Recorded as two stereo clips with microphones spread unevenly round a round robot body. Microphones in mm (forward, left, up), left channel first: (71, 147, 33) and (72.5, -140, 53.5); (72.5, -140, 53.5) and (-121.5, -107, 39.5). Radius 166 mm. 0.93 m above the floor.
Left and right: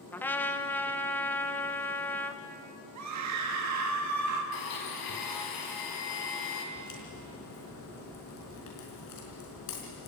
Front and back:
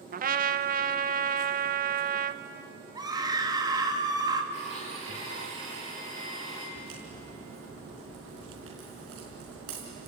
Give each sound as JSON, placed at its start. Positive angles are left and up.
{"t": 0.1, "sound": "a trumpet", "azimuth_deg": 170, "distance_m": 0.9}
{"t": 3.0, "sound": "a scream", "azimuth_deg": -120, "distance_m": 2.0}
{"t": 4.5, "sound": "a blender", "azimuth_deg": 100, "distance_m": 4.0}
{"t": 6.8, "sound": "a crack", "azimuth_deg": 130, "distance_m": 4.5}